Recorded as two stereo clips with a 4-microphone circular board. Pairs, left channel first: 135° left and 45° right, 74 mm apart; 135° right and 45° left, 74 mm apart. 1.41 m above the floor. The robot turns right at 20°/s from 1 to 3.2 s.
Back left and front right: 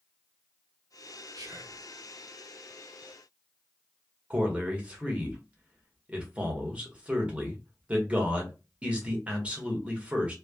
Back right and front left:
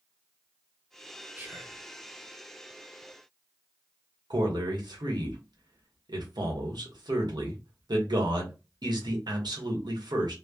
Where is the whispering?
20° right, 0.9 m; by 1.8 s 10° right, 0.9 m.